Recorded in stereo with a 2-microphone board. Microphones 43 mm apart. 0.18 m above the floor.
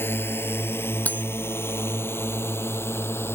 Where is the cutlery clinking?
40° left (ahead or behind).